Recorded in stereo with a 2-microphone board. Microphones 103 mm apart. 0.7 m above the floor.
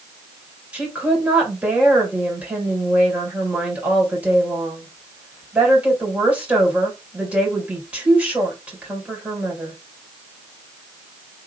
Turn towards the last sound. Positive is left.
turn(degrees=-15)  # may be behind; listen again after turning